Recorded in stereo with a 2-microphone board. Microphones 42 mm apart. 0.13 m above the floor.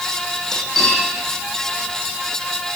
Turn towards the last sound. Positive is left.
turn(degrees=5)  # may be behind; listen again after turning